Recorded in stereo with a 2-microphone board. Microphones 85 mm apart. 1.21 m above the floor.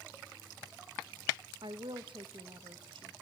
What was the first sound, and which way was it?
A woman speaking, 70° right (ahead or behind).